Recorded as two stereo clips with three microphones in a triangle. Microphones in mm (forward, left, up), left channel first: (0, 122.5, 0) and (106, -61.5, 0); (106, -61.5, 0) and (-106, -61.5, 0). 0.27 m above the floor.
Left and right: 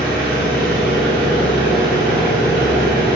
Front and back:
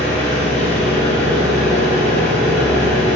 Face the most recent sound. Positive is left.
turn(degrees=-155)